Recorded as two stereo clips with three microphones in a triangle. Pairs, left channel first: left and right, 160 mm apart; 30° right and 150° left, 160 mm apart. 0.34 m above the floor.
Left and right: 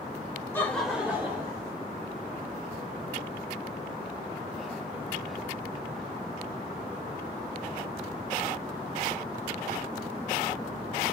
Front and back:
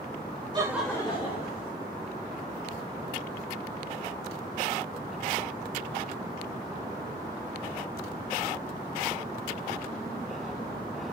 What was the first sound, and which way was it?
Laughter, 150° left.